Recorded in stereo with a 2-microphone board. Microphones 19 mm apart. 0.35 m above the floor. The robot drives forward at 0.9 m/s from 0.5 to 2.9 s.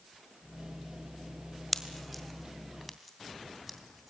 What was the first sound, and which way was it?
A pop, centre (ahead or behind).